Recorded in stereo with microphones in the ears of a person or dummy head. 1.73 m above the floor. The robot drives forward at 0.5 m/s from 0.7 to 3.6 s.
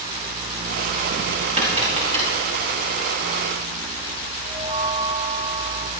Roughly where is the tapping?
Right.